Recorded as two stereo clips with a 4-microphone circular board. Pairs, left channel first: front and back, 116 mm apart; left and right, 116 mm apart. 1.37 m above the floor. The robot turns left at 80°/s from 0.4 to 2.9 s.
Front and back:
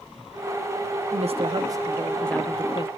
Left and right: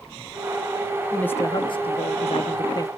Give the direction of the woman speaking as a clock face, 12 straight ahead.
6 o'clock.